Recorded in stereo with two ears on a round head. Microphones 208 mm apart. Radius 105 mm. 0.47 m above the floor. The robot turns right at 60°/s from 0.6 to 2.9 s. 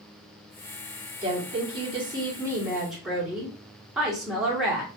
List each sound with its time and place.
1.2 s a woman speaking: 20° right (ahead or behind), 1.0 m; by 4.9 s 5° right (ahead or behind), 1.0 m